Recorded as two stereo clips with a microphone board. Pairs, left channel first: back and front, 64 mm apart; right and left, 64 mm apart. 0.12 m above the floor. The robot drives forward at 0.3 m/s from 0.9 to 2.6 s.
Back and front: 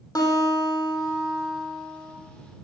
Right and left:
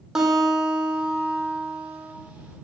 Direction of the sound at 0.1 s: 170° left.